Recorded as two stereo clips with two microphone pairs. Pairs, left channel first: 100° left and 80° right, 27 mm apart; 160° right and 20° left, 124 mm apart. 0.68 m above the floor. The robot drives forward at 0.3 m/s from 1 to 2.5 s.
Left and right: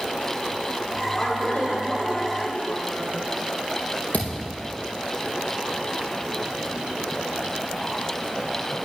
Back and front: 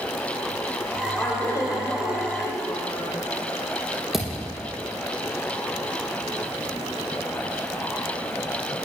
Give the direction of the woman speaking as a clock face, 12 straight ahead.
7 o'clock.